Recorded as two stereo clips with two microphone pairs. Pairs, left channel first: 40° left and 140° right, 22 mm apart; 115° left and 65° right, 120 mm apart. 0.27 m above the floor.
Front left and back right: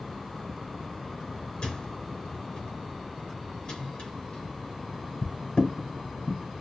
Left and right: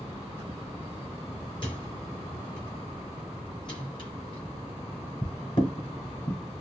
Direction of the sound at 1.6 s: 75° left.